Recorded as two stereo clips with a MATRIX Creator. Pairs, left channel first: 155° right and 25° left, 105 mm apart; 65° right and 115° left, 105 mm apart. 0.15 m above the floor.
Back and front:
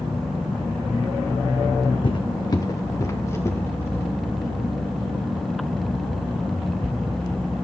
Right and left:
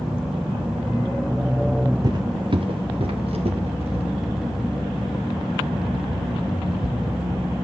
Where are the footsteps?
165° left, 0.8 m; by 4.0 s 135° left, 2.5 m.